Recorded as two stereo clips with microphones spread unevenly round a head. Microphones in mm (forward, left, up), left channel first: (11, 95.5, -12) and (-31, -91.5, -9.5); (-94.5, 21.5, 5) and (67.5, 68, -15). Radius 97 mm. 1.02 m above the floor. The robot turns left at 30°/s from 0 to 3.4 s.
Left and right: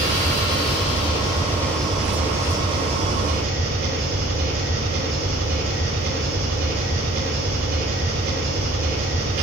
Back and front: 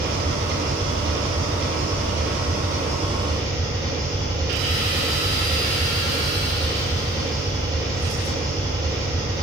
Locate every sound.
0.0 s an engine running: 45° left, 3.5 m; by 9.4 s 55° right, 3.5 m